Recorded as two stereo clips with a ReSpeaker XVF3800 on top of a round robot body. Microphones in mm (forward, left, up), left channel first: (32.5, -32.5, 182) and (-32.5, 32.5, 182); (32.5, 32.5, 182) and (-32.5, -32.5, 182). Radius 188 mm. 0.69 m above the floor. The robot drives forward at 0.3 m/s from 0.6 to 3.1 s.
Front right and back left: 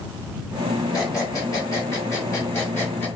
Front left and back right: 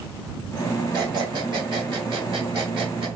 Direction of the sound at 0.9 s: 95° right.